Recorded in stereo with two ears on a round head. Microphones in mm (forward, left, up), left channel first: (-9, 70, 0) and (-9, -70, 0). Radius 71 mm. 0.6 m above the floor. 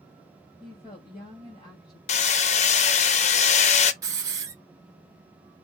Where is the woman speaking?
25° left (ahead or behind), 2.5 m.